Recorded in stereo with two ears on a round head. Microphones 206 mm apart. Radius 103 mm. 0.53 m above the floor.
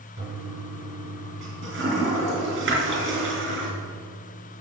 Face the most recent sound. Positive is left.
turn(degrees=-55)  # may be behind; listen again after turning